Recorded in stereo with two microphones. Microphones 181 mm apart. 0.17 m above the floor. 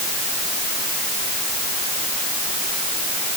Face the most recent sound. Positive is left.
No sound to turn to.